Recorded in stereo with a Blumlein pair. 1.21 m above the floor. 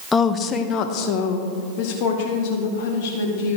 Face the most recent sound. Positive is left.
turn(degrees=50)